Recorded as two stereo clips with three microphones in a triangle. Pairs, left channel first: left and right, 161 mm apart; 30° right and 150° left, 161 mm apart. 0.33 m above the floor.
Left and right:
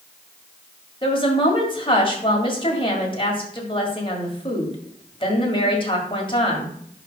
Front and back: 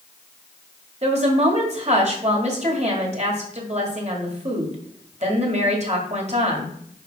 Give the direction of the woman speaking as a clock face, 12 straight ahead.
8 o'clock.